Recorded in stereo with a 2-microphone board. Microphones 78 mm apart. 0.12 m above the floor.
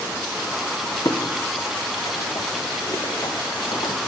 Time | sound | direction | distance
1.1 | footsteps | 40° left (ahead or behind) | 3 m